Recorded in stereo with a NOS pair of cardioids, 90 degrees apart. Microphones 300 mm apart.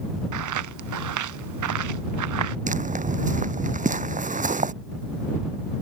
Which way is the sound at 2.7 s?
25° right.